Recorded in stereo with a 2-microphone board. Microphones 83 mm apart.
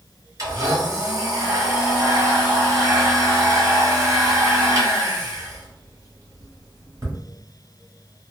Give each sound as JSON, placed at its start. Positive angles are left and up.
{"t": 0.4, "sound": "a blender", "side_deg": -45, "distance_m": 1.3}